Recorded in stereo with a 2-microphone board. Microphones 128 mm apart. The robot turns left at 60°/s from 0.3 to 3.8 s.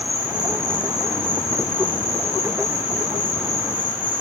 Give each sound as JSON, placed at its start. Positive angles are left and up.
{"t": 0.0, "sound": "an insect", "azimuth_deg": -135, "distance_m": 3.0}